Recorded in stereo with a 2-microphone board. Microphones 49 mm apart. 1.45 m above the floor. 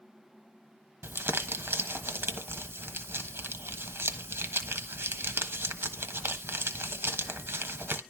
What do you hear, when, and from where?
1.0 s crumpling: 60° right (ahead or behind), 1.2 m